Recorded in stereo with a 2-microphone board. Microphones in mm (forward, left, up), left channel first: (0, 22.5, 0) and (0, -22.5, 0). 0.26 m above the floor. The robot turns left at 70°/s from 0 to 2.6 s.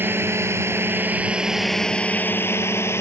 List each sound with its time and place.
0.0 s a drone: 50° right (ahead or behind); by 3.0 s 70° left (ahead or behind)